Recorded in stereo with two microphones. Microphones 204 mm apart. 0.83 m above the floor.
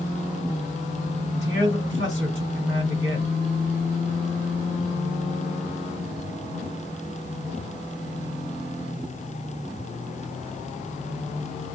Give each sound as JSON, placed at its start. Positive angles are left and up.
{"t": 1.3, "sound": "a man speaking", "side_deg": -70, "distance_m": 1.5}